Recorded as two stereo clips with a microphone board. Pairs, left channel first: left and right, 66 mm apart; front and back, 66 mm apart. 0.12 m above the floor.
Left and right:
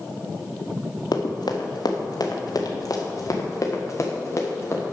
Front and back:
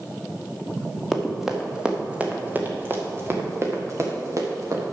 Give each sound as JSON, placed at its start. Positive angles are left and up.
{"t": 1.1, "sound": "running footsteps", "azimuth_deg": 90, "distance_m": 1.7}